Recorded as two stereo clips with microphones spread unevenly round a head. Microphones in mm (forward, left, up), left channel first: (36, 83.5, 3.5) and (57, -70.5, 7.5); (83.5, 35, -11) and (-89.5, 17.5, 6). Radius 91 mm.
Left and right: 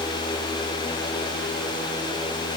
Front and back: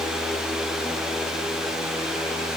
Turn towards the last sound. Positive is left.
No sound to turn to.